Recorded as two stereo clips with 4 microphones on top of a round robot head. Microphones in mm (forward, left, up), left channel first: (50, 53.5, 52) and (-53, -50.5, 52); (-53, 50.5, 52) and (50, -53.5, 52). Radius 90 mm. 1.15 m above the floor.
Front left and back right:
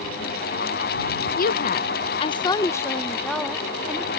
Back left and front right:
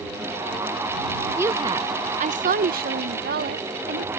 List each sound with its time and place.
1.4 s a woman speaking: 30° left; by 4.1 s 55° right